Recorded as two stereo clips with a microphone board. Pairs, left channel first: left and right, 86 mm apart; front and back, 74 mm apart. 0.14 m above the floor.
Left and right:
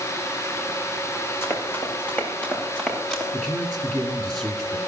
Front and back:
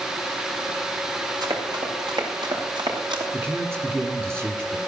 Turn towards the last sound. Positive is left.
turn(degrees=170)